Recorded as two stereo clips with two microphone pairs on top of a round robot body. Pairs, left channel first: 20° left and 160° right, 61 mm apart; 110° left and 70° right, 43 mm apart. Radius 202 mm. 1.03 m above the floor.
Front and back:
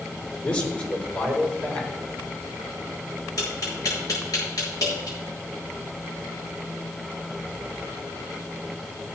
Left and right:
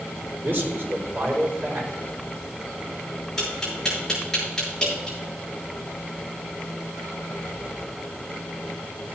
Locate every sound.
0.4 s a man speaking: 40° right, 5.5 m
3.4 s tapping: 30° left, 7.5 m